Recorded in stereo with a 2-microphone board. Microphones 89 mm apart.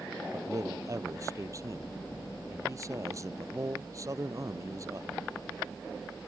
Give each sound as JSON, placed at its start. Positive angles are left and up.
{"t": 0.3, "sound": "a man speaking", "side_deg": -40}